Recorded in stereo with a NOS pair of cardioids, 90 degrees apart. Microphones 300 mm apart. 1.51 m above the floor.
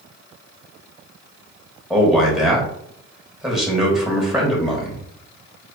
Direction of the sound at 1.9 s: Straight ahead.